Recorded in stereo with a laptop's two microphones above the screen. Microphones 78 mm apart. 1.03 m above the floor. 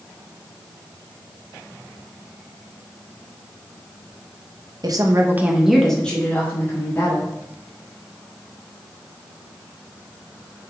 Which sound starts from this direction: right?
A woman speaking, at 4.8 s.